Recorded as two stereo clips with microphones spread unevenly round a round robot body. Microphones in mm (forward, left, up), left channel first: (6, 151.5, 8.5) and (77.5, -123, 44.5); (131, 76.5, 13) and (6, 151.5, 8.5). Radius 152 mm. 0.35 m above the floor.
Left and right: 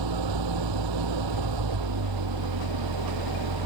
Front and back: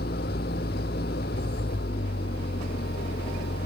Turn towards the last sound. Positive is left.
turn(degrees=-80)